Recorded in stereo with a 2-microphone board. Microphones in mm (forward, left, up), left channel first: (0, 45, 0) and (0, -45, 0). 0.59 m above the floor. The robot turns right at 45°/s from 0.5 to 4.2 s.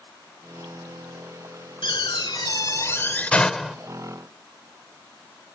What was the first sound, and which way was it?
A door slam, 95° left.